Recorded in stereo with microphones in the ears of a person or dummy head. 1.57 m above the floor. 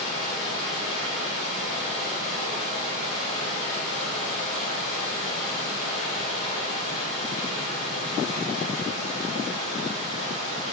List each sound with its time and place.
0.0 s running water: 40° left (ahead or behind), 1.7 m